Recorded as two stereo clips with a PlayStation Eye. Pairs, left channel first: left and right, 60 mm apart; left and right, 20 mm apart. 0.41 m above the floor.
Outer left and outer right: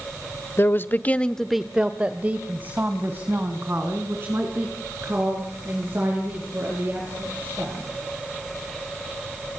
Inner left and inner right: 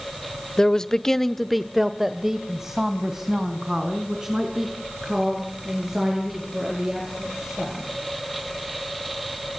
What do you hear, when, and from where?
0.6 s a man speaking: 40° left (ahead or behind), 1.2 m; by 7.9 s 40° right (ahead or behind), 8.5 m